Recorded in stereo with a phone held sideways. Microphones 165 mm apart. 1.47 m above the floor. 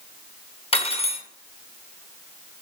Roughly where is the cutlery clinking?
Left.